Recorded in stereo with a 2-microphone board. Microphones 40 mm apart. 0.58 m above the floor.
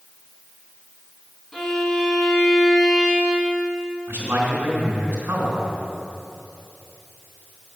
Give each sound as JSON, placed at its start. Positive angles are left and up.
{"t": 1.5, "sound": "a violin", "side_deg": 10, "distance_m": 2.0}
{"t": 4.1, "sound": "a man speaking", "side_deg": -60, "distance_m": 3.0}